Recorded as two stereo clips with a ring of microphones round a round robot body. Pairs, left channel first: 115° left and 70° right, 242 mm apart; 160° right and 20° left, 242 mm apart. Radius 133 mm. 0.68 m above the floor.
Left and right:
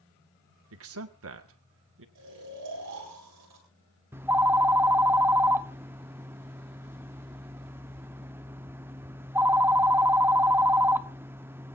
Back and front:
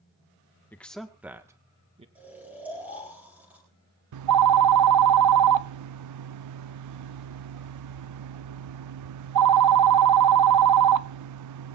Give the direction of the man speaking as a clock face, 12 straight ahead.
3 o'clock.